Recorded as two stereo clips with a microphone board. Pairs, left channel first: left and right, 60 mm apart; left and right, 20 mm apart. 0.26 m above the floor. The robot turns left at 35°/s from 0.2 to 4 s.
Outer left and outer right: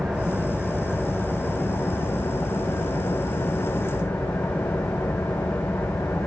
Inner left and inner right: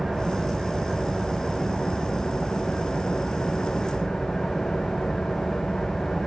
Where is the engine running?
Straight behind, 4 m; by 6.3 s 50° left, 4 m.